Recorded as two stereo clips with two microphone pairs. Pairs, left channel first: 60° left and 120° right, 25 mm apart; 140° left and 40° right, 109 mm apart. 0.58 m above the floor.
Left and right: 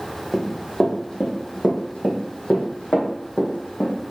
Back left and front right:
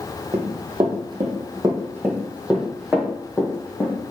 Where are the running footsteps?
15° right, 1.5 m; by 4.0 s 65° left, 2.0 m.